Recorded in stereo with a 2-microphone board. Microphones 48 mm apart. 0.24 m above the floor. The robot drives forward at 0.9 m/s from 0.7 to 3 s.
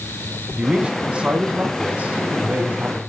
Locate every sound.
0.6 s a man speaking: 20° right (ahead or behind), 2.5 m; by 3.0 s 30° right (ahead or behind), 1.7 m